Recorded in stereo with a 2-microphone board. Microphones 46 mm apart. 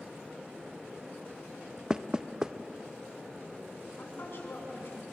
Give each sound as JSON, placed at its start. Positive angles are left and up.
{"t": 1.9, "sound": "knocking", "side_deg": -15, "distance_m": 0.5}
{"t": 4.0, "sound": "a woman speaking", "side_deg": 55, "distance_m": 6.5}